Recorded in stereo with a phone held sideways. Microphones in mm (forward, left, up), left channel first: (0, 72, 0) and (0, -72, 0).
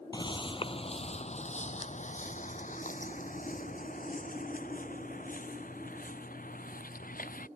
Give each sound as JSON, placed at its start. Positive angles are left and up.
{"t": 0.1, "sound": "footsteps", "side_deg": 30}